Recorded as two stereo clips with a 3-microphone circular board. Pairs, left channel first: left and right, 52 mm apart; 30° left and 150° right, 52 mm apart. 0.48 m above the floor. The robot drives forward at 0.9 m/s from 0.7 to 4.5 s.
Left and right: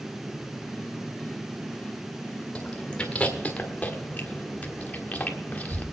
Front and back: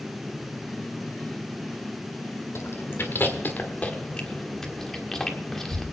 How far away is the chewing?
About 2 m.